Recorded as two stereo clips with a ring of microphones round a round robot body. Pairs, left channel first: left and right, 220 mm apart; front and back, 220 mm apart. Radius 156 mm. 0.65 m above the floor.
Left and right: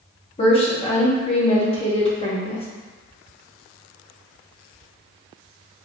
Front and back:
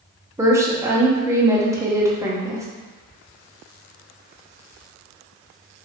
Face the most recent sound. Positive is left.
turn(degrees=120)